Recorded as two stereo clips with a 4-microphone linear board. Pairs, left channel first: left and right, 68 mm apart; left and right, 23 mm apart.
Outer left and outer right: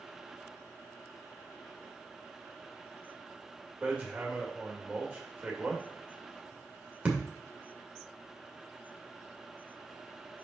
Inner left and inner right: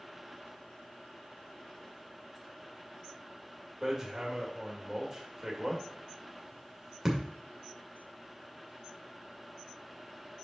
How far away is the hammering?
About 1.8 m.